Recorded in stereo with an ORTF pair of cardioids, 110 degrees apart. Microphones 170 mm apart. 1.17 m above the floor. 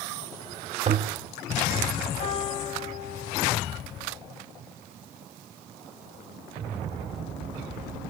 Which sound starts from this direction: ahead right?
A toilet flushing, at 0.9 s.